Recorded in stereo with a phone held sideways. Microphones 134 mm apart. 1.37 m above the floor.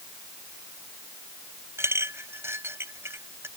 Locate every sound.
1.8 s a clink: 15° right (ahead or behind)